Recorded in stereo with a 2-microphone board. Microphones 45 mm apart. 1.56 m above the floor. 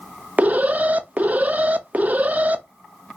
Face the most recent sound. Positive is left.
turn(degrees=-35)  # may be behind; listen again after turning